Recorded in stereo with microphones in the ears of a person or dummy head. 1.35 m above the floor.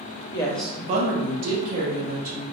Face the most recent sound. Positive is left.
turn(degrees=-75)  # may be behind; listen again after turning